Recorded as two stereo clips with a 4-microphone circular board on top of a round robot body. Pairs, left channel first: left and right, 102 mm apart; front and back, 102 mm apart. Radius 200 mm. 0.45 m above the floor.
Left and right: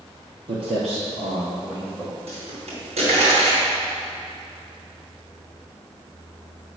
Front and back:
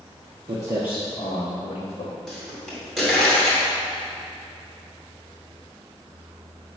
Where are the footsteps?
130° right, 1.1 m; by 2.1 s 25° right, 1.7 m.